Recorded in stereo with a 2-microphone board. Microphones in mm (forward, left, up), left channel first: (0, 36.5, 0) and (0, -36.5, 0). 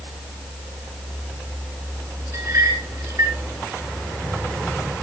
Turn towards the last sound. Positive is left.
turn(degrees=-45)  # may be behind; listen again after turning